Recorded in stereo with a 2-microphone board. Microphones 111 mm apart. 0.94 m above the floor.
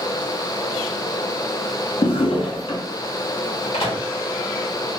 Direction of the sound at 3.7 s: 60° left (ahead or behind).